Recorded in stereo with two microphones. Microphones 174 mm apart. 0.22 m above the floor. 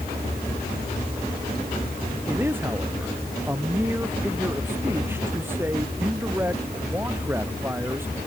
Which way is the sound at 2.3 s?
10° right (ahead or behind).